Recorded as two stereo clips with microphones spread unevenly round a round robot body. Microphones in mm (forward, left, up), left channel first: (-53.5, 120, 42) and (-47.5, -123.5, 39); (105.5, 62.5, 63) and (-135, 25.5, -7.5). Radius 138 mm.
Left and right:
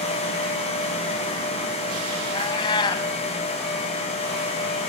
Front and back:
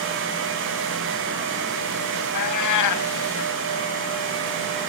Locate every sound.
2.3 s a cat meowing: 15° left, 2 m